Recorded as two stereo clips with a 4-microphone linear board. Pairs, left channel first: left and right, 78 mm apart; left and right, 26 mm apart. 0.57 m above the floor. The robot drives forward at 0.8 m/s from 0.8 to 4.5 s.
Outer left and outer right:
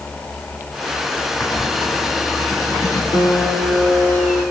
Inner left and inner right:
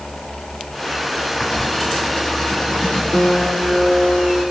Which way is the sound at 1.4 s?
55° left (ahead or behind).